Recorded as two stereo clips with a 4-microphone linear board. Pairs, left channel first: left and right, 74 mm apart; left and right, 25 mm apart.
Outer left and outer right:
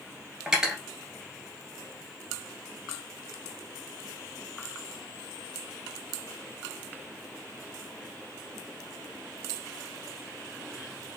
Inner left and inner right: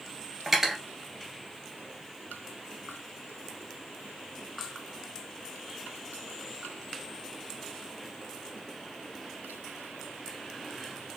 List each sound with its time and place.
0.5 s cutlery clinking: 10° right (ahead or behind), 1.6 m